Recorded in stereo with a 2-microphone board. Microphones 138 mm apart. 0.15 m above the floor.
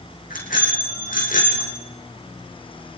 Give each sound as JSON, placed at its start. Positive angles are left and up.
{"t": 0.3, "sound": "a bicycle bell", "side_deg": 80, "distance_m": 6.5}